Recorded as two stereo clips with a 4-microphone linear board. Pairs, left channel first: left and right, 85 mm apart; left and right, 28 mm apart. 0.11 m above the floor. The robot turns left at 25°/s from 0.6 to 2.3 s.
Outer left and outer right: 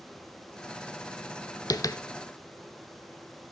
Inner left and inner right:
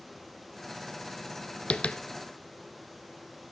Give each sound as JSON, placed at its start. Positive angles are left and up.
{"t": 1.7, "sound": "tapping", "side_deg": 45, "distance_m": 0.5}